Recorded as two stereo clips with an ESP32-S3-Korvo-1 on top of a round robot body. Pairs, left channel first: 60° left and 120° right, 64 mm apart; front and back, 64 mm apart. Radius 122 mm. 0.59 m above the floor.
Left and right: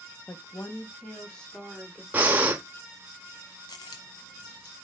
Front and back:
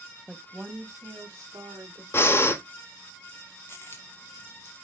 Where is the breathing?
55° right, 0.7 m.